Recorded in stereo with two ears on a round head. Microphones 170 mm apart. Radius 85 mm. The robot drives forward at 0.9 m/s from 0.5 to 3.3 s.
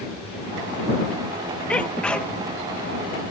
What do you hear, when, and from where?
1.7 s a sneeze: 5° left (ahead or behind)